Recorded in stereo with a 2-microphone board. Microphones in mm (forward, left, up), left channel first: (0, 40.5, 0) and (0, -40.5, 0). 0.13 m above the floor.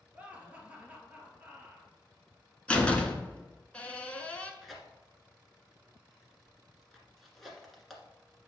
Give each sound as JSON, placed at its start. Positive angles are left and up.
{"t": 0.1, "sound": "laughter", "side_deg": -20, "distance_m": 2.0}
{"t": 2.7, "sound": "a door slam", "side_deg": 15, "distance_m": 1.0}
{"t": 4.6, "sound": "tearing paper", "side_deg": 0, "distance_m": 1.4}